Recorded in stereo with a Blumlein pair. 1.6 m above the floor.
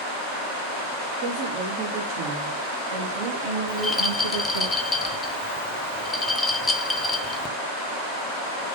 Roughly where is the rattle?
Ahead.